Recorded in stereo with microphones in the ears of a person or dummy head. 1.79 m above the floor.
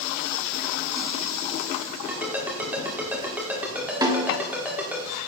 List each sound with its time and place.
2.1 s a ringtone: 10° right (ahead or behind), 2.5 m
4.0 s a snare drum: 25° right (ahead or behind), 1.0 m